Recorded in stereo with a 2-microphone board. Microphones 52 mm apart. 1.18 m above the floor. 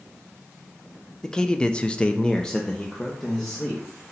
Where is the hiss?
I don't hear a hiss.